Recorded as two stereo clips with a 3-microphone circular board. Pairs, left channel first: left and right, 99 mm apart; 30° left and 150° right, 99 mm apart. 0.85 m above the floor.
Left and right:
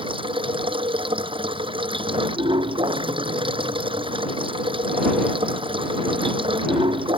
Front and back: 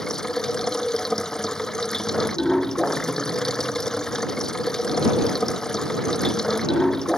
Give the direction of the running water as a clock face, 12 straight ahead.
2 o'clock.